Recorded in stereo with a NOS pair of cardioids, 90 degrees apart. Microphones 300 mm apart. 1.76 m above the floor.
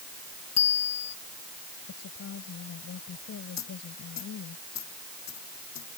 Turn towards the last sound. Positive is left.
turn(degrees=65)